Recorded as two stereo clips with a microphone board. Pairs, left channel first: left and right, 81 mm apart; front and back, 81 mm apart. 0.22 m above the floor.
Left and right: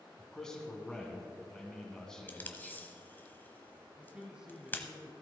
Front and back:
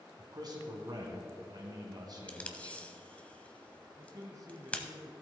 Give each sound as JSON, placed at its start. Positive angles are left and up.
{"t": 0.2, "sound": "a man speaking", "azimuth_deg": 170, "distance_m": 2.0}
{"t": 2.3, "sound": "tape being pulled", "azimuth_deg": 55, "distance_m": 1.0}
{"t": 4.0, "sound": "a man speaking", "azimuth_deg": -165, "distance_m": 1.3}